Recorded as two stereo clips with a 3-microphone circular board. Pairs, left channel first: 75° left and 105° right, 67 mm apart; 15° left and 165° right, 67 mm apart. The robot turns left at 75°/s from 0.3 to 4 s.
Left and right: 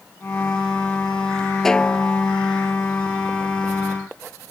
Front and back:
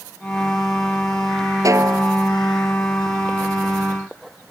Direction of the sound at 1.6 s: 160° left.